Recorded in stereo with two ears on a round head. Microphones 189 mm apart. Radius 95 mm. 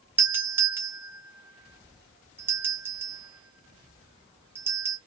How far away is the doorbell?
About 1.1 m.